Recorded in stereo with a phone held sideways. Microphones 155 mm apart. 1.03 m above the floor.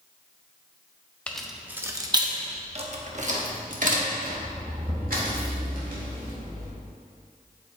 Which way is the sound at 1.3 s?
10° left (ahead or behind).